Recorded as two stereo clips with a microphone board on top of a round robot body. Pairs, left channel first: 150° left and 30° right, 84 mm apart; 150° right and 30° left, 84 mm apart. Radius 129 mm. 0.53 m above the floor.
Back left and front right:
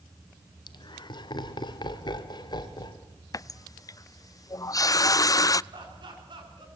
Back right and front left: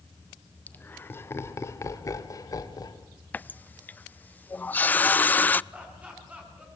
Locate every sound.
0.7 s laughter: 145° left, 2 m; by 3.0 s 175° left, 3 m
3.3 s a running tap: 150° left, 0.5 m
5.7 s laughter: 45° right, 7.5 m